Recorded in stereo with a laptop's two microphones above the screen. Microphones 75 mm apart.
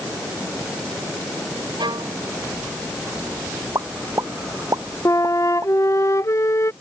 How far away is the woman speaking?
I don't hear a woman speaking.